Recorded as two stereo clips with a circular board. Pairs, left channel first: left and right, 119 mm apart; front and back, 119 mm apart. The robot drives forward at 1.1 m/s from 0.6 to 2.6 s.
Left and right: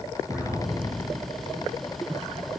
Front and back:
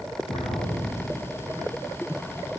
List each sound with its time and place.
0.3 s an explosion: 5° right, 2.5 m